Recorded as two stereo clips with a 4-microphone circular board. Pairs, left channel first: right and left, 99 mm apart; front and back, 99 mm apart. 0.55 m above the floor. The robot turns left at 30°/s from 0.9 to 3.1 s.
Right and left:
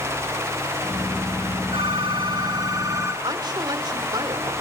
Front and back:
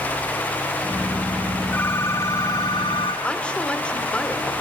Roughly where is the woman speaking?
Left.